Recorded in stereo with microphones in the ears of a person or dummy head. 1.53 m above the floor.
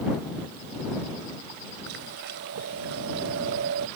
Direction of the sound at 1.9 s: 60° right (ahead or behind).